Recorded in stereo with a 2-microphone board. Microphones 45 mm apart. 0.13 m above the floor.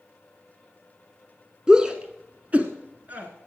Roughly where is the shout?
Centre.